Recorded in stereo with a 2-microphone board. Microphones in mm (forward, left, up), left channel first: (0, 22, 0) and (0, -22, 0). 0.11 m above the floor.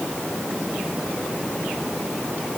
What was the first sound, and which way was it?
Only background noise.